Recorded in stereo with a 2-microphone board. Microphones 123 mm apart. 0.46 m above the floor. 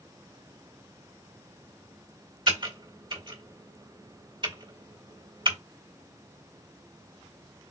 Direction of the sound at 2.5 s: 40° right (ahead or behind).